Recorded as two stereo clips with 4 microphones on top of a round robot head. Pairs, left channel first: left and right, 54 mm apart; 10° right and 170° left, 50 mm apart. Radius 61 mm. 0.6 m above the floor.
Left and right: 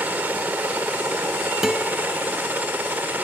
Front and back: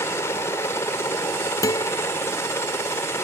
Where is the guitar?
5° right.